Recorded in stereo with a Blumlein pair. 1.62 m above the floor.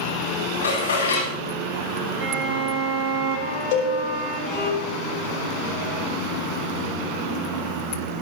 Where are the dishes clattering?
70° left, 8.5 m.